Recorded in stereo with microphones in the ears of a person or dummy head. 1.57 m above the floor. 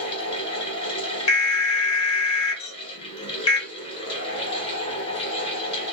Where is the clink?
40° left (ahead or behind), 1.1 m.